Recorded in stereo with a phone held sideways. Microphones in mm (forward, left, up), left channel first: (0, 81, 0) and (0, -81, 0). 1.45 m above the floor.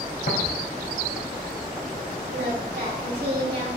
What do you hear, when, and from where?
0.3 s tapping: 70° left (ahead or behind), 2.5 m
2.3 s singing: 85° right, 2.5 m